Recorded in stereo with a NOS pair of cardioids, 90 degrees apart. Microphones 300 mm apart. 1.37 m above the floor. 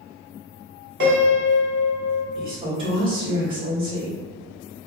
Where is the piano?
40° right, 1.3 m.